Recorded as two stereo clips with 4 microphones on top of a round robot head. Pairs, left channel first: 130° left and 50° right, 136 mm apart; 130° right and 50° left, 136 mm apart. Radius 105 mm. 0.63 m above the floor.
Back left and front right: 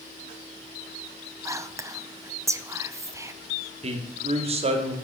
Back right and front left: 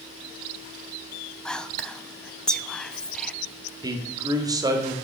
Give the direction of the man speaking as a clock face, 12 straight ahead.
12 o'clock.